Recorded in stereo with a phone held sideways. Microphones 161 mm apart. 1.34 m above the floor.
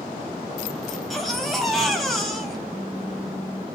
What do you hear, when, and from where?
0.9 s a baby crying: centre (ahead or behind), 2.5 m
2.7 s a phone buzzing: 15° left (ahead or behind), 2 m